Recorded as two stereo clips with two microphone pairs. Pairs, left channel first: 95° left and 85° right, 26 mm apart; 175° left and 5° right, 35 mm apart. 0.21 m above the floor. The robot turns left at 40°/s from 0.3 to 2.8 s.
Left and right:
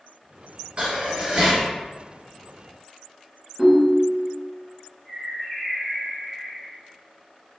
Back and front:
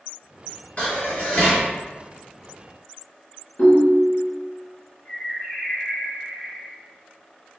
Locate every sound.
0.8 s dishes clattering: 135° right, 1.8 m; by 1.7 s 170° right, 1.8 m
3.6 s a ringtone: 160° right, 1.3 m
5.0 s a bird: 165° left, 2.0 m